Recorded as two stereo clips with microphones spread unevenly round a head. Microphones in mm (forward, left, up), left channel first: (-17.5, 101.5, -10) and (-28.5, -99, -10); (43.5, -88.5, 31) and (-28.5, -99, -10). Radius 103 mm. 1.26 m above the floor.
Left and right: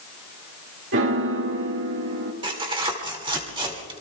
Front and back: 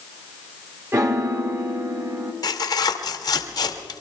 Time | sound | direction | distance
0.9 | a piano | 120° right | 2.0 m
2.4 | tearing paper | 25° right | 2 m